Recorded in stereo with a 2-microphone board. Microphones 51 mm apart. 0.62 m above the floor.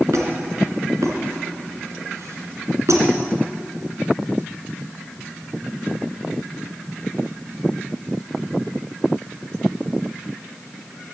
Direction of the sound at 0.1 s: 80° right.